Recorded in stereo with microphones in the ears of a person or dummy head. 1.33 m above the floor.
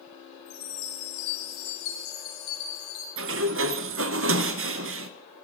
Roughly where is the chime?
Left.